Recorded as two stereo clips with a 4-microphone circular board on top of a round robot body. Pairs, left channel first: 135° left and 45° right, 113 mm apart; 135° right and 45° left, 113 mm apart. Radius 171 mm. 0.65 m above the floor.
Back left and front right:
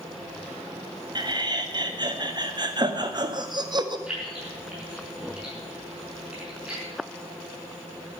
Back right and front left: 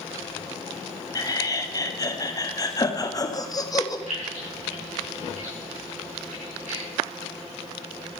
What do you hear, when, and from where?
1.1 s laughter: 85° right, 1.8 m
4.1 s keys jangling: 35° left, 6 m